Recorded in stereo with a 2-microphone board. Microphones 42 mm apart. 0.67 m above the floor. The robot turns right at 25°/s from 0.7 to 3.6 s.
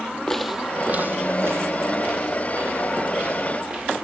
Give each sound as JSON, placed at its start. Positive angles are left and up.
{"t": 0.3, "sound": "footsteps", "side_deg": 15, "distance_m": 1.2}